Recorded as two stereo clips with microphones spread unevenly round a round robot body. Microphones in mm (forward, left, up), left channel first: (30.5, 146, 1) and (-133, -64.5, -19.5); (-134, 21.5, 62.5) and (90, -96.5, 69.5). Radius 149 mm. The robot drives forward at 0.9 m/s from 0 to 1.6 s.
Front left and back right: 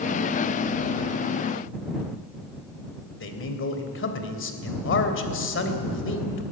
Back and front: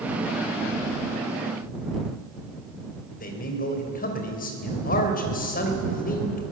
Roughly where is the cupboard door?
No cupboard door in this recording.